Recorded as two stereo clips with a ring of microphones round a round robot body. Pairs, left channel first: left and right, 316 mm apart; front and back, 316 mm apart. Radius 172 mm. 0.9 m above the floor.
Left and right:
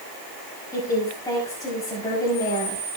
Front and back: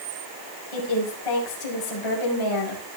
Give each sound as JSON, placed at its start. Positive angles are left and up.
{"t": 0.7, "sound": "a woman speaking", "azimuth_deg": 10, "distance_m": 5.5}